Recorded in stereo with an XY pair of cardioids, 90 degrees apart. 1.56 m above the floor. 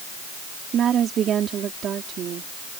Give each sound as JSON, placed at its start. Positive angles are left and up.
{"t": 0.7, "sound": "a woman speaking", "azimuth_deg": -65}